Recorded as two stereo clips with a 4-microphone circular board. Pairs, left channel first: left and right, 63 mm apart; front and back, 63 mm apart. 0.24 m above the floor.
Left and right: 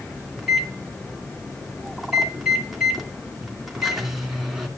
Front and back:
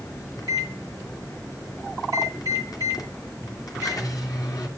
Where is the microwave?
5° right, 2.5 m.